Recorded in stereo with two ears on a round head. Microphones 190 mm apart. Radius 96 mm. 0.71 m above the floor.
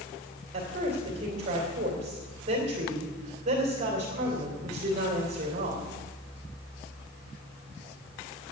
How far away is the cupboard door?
I don't hear a cupboard door.